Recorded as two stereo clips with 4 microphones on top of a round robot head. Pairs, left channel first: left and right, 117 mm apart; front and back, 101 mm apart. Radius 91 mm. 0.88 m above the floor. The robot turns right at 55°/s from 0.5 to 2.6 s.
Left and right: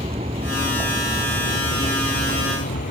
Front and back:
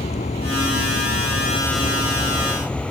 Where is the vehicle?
35° right; by 2.9 s 80° left.